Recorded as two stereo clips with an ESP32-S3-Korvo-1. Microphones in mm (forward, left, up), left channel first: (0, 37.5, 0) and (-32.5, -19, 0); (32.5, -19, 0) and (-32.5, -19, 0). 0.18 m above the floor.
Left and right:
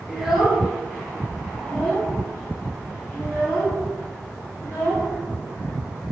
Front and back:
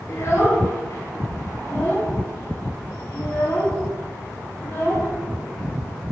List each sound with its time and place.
0.1 s a child speaking: 40° right, 2.5 m; by 5.1 s straight ahead, 4 m